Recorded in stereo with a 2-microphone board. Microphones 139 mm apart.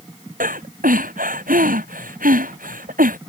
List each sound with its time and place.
0.4 s breathing: 80° right